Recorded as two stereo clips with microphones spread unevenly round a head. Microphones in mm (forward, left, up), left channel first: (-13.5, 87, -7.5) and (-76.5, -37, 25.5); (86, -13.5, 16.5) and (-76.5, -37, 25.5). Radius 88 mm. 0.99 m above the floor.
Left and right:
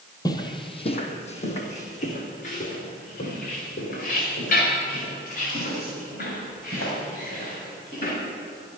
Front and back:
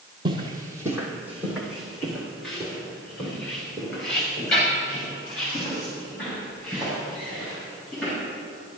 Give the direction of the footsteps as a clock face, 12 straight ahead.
8 o'clock.